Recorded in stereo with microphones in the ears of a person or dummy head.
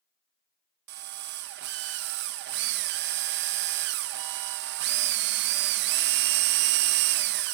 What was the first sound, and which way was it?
A drill, 60° right (ahead or behind).